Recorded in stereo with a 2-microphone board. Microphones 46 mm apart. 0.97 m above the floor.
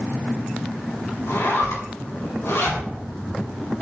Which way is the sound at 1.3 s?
70° left (ahead or behind).